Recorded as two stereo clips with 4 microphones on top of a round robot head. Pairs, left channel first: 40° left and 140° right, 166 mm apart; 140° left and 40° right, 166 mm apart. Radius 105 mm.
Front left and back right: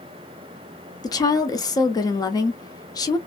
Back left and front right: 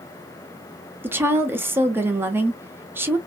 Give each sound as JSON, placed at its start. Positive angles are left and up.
{"t": 1.0, "sound": "a woman speaking", "azimuth_deg": 15, "distance_m": 0.8}